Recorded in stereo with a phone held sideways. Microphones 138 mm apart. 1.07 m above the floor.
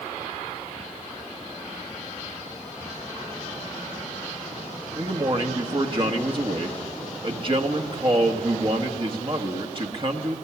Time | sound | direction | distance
5.0 | a man speaking | 40° right (ahead or behind) | 1.7 m